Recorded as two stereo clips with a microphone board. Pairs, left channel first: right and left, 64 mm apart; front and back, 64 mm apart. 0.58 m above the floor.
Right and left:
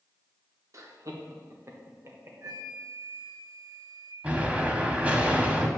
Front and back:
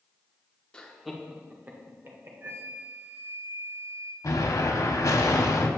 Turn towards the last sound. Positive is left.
turn(degrees=25)